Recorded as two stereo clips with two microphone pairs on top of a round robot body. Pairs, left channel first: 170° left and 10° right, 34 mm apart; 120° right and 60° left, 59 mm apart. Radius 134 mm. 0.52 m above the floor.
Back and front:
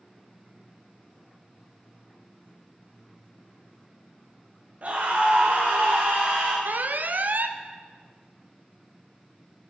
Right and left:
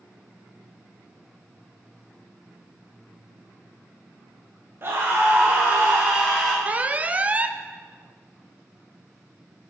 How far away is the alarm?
About 0.7 m.